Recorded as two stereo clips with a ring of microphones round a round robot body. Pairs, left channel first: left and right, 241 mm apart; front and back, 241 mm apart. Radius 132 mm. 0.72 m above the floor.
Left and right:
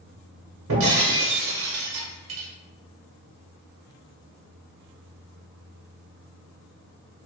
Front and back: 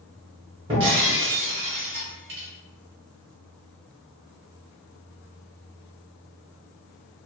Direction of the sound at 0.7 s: 115° right.